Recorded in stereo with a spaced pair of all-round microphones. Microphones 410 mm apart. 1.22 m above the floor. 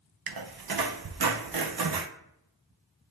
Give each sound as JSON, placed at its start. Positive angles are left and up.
{"t": 0.3, "sound": "a squeak", "side_deg": -60, "distance_m": 0.5}